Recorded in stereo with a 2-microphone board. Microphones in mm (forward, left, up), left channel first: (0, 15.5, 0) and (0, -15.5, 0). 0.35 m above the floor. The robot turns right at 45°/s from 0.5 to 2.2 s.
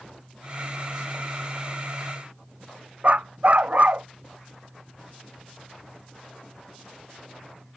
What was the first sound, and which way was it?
A dog barking, 45° right (ahead or behind).